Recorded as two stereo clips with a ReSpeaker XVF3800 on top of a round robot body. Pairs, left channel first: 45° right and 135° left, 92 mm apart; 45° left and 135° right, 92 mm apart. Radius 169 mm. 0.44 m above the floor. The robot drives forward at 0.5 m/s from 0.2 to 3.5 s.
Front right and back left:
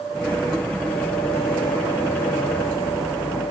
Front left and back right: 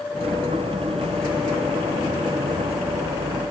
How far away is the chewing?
No chewing in this recording.